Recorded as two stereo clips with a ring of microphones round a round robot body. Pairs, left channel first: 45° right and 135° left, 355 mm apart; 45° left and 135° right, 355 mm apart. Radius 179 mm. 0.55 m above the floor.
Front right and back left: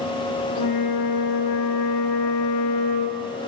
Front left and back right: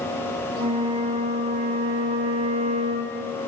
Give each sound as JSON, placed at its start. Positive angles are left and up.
{"t": 0.6, "sound": "a flute", "azimuth_deg": -65, "distance_m": 0.5}